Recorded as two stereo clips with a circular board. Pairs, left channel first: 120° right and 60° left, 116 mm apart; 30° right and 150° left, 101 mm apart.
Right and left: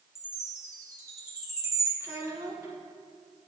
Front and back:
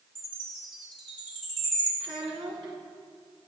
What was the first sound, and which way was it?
A chime, 120° left.